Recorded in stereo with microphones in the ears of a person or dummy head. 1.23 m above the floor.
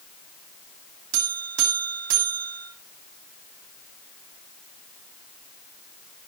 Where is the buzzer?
70° right (ahead or behind), 2.5 m.